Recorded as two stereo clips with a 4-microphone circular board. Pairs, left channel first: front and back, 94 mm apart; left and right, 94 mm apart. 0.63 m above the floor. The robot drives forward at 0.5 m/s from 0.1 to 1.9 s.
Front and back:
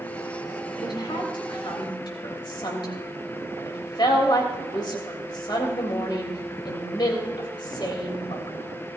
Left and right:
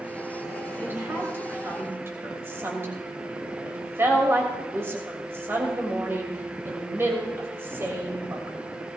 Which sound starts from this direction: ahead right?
A woman speaking, at 0.8 s.